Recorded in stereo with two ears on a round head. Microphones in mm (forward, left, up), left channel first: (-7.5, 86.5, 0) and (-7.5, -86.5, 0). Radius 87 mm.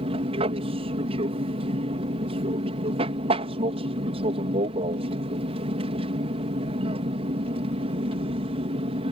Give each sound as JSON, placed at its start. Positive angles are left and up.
{"t": 0.0, "sound": "an aircraft", "side_deg": -30}